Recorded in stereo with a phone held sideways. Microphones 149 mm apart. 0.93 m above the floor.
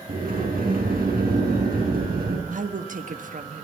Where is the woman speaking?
65° right (ahead or behind), 1.3 m.